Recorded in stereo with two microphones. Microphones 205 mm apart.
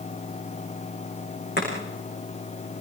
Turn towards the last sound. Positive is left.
turn(degrees=55)  # may be behind; listen again after turning